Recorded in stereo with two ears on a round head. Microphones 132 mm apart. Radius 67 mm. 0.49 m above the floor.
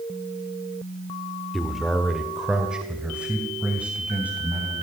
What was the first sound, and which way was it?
A man speaking, centre (ahead or behind).